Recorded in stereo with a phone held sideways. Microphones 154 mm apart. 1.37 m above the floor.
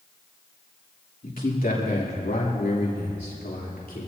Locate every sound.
1.2 s a man speaking: 65° left (ahead or behind), 3 m; by 4.1 s 80° left, 3.5 m